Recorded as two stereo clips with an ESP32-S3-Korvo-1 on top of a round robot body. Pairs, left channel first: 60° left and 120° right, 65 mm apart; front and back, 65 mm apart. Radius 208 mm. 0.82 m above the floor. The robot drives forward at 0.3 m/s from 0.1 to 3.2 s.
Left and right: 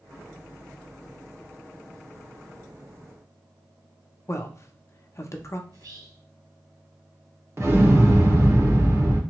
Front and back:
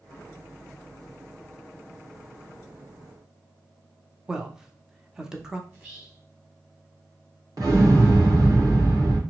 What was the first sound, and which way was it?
A man speaking, 100° left.